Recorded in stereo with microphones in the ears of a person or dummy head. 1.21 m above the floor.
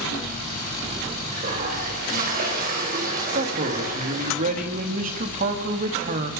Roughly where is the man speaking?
Right.